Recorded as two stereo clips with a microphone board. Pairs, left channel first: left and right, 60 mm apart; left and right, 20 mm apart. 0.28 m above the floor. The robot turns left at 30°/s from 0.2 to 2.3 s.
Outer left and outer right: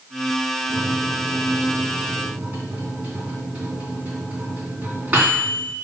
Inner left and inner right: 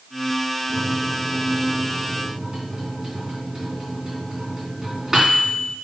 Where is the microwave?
20° left, 2.5 m; by 5.8 s 30° right, 2.5 m.